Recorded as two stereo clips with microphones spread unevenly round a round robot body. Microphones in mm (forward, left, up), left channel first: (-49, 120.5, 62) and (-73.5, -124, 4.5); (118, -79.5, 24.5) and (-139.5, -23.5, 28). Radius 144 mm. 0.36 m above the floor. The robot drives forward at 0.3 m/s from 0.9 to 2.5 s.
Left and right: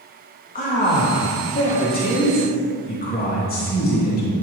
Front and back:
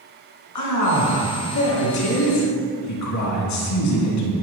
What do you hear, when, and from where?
0.6 s a man speaking: 20° left, 4 m